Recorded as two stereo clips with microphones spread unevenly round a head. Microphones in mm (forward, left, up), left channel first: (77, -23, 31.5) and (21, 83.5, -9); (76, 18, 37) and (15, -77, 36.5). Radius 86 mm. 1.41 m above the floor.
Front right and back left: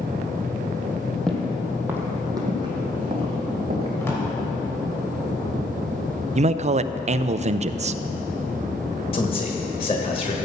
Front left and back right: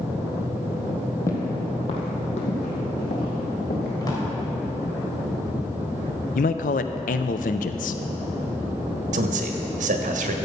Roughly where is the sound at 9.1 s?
Behind right.